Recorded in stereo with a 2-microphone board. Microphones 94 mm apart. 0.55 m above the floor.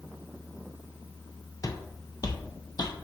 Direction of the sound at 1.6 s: 40° left (ahead or behind).